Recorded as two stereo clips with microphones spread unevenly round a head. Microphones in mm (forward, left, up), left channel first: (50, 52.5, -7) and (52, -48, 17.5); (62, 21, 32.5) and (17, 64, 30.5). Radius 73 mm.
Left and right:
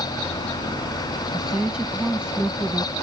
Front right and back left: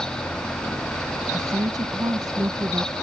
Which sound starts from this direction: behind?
A woman speaking, at 1.3 s.